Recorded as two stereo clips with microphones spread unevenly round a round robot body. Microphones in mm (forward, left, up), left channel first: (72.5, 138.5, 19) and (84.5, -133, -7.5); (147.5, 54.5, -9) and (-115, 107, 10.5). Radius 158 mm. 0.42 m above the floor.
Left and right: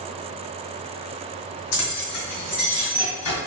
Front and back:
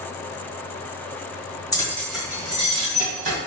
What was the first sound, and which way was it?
Keys jangling, 60° left.